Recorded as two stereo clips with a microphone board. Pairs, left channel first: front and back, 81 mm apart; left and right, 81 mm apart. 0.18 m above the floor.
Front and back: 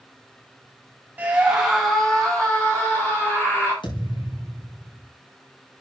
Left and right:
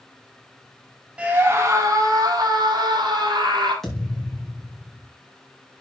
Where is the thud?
5° left, 7 m.